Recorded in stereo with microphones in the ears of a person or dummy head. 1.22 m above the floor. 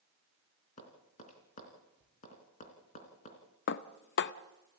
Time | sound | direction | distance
0.8 | tapping | 40° left (ahead or behind) | 3.5 m
3.7 | dishes clattering | 50° left (ahead or behind) | 0.6 m